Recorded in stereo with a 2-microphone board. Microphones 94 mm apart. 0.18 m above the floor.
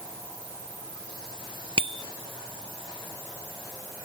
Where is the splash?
No splash in this recording.